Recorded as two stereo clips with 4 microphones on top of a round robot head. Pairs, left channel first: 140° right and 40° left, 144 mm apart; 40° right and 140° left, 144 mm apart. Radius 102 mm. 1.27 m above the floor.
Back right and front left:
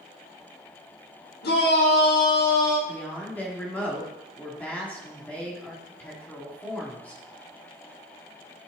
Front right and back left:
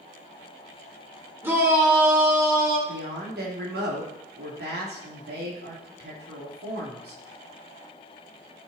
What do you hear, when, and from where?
1.4 s a shout: 140° right, 4.5 m; by 2.8 s 150° right, 5 m
2.9 s a woman speaking: 140° left, 3 m